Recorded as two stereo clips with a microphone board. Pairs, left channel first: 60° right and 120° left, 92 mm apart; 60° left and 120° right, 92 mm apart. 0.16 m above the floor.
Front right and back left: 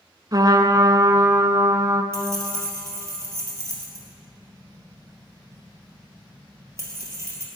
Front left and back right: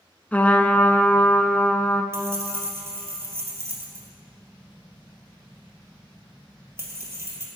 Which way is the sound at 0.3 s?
125° left.